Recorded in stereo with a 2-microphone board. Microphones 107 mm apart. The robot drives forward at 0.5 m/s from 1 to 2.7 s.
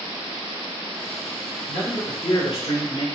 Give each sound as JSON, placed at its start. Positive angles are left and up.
{"t": 1.7, "sound": "a man speaking", "side_deg": 55, "distance_m": 2.0}